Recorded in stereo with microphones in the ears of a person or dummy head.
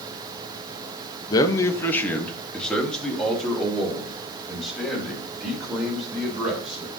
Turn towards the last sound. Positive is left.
turn(degrees=-5)  # may be behind; listen again after turning